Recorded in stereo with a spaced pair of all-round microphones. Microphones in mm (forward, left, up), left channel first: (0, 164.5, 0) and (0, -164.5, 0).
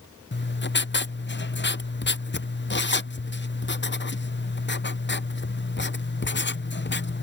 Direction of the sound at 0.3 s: 35° left (ahead or behind).